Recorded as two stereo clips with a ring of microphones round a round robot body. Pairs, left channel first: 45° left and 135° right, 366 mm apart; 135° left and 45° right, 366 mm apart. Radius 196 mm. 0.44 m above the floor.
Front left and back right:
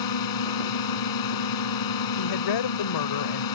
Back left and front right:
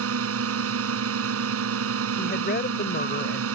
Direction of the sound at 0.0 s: 10° left.